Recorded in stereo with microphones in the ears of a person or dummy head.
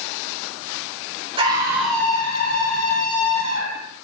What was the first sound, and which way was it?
A scream, 20° right (ahead or behind).